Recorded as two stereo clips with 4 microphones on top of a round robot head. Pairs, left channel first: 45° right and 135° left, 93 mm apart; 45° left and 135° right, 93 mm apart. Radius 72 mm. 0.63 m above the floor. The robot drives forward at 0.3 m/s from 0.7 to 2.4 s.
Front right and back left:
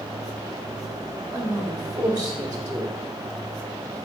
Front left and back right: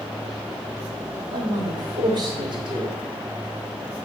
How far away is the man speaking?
About 1.7 m.